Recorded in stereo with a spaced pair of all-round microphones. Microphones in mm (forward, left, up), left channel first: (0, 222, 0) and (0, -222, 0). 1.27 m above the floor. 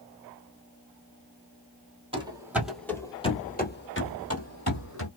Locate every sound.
2.1 s running footsteps: 10° right (ahead or behind), 1.4 m; by 5.1 s 40° left (ahead or behind), 1.8 m